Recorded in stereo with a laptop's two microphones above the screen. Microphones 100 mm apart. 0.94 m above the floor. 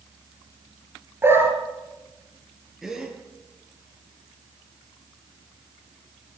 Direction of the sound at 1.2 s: 25° right (ahead or behind).